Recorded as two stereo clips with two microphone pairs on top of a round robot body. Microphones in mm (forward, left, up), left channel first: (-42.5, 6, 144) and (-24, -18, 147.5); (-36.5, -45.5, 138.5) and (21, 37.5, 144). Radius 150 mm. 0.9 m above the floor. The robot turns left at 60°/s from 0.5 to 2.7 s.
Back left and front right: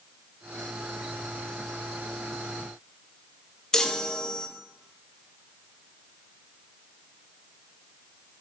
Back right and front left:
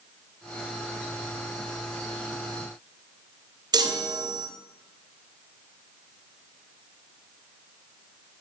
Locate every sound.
3.7 s a chime: 85° left, 0.5 m